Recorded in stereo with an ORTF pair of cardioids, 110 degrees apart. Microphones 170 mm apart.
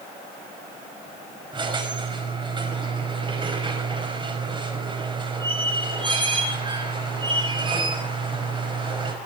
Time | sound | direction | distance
1.5 | a squeak | 30° right | 5 m